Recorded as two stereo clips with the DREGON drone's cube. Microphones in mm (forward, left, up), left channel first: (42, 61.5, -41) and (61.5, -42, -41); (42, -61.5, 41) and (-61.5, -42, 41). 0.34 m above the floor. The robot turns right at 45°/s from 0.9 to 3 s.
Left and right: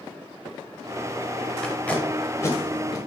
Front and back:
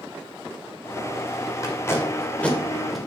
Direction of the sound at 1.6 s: 25° left.